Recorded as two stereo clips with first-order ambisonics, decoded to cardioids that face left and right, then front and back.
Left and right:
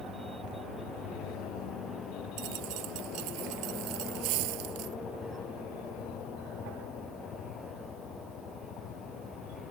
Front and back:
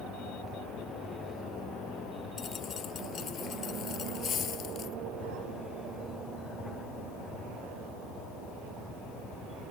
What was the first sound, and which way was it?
A dropped coin, 60° right.